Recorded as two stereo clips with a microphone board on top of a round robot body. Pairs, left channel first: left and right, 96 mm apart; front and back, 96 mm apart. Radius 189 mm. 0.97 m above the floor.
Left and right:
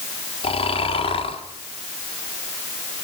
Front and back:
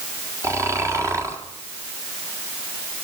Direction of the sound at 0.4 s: 120° left.